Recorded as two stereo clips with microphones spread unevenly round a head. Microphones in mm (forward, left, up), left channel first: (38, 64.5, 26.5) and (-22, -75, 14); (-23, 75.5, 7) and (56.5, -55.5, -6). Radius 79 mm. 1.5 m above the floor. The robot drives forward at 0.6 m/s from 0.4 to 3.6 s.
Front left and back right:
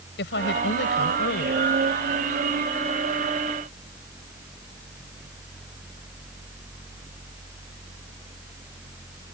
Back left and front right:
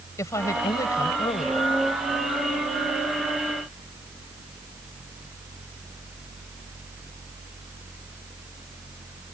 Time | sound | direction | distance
0.2 | a woman speaking | 50° left | ?